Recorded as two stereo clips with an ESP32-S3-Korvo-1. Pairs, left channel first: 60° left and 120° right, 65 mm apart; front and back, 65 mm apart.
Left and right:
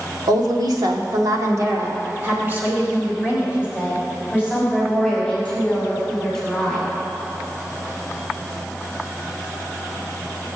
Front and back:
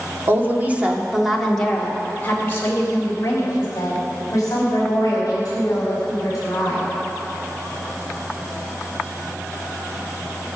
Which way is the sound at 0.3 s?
130° right.